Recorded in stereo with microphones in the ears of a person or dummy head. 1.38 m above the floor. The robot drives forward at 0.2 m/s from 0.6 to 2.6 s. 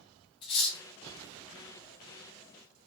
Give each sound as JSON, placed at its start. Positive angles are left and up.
{"t": 0.4, "sound": "cutlery clinking", "side_deg": 25, "distance_m": 0.6}